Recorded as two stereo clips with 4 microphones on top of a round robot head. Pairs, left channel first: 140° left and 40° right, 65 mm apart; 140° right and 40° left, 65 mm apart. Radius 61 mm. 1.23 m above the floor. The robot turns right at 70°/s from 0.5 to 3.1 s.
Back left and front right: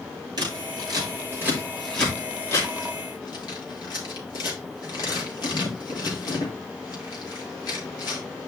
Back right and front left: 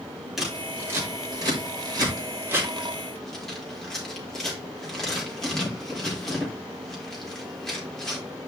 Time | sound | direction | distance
0.4 | scissors | 45° right | 4 m